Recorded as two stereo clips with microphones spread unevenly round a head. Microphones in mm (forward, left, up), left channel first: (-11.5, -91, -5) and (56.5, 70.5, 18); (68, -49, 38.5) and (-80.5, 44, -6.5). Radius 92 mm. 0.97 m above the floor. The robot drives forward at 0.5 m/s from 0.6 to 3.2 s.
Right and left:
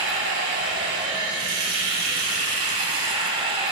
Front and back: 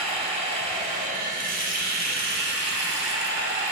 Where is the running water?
85° left, 2.0 m; by 3.7 s 120° left, 2.5 m.